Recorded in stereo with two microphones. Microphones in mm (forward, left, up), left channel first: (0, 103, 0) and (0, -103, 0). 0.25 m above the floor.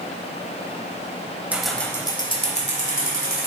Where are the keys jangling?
5° right (ahead or behind), 0.9 m; by 3.5 s 45° left (ahead or behind), 1.8 m.